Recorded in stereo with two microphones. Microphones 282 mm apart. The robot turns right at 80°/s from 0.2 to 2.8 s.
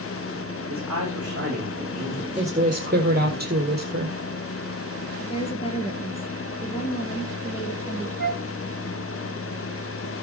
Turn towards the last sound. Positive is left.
turn(degrees=40)  # may be behind; listen again after turning